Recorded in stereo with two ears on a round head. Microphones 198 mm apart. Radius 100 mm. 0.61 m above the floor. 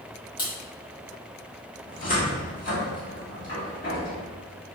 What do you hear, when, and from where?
0.4 s a crack: 20° left (ahead or behind), 1.3 m
1.9 s a cupboard door: 40° left (ahead or behind), 1.2 m